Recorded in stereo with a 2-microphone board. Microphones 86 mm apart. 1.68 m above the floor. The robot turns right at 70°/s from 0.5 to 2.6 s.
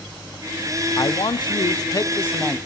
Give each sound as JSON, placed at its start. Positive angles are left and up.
{"t": 1.0, "sound": "a man speaking", "azimuth_deg": 60, "distance_m": 0.5}